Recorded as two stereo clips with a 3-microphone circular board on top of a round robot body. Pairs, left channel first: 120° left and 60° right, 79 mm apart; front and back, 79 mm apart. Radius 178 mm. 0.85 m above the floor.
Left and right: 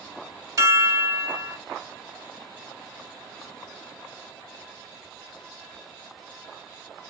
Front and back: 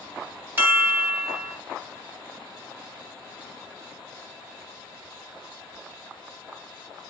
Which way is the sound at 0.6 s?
115° right.